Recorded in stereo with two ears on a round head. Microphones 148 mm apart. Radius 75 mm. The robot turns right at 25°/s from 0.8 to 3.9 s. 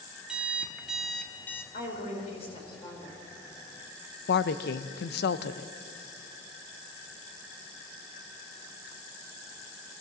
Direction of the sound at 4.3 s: 70° left (ahead or behind).